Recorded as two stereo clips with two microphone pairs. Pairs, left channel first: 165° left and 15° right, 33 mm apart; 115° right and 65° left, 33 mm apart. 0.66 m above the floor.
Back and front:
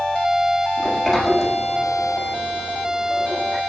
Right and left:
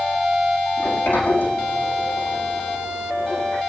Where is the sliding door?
105° right, 7.5 m.